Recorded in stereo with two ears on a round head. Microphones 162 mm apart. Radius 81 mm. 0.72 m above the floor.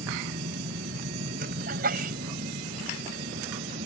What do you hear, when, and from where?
0.0 s a vehicle: 50° right (ahead or behind); by 3.9 s 45° right (ahead or behind)
1.7 s a sneeze: 55° right (ahead or behind)